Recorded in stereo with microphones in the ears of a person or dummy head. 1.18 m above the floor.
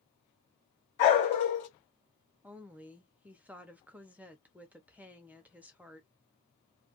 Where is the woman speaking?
10° right (ahead or behind), 0.6 m.